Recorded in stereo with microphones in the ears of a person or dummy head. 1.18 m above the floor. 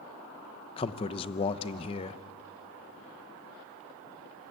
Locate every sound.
0.8 s a man speaking: 30° left (ahead or behind), 0.9 m